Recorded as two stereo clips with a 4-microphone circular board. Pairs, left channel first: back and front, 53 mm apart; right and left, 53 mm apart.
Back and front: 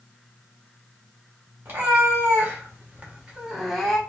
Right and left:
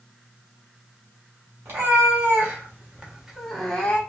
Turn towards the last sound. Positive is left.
turn(degrees=-105)